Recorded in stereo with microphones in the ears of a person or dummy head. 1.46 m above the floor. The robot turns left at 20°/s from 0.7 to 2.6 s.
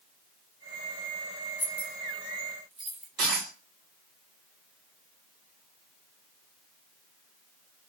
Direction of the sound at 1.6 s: 15° left (ahead or behind).